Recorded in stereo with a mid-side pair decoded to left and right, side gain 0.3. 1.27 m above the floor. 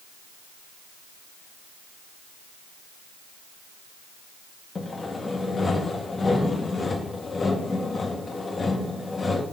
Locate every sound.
4.8 s sawing: 40° left, 1.7 m